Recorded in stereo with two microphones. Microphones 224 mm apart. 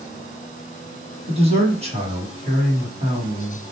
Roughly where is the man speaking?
Right.